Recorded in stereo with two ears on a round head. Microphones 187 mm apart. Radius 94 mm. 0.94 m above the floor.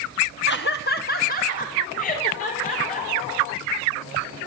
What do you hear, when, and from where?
0.5 s laughter: 55° left (ahead or behind), 1.0 m; by 4.1 s 35° left (ahead or behind), 5.5 m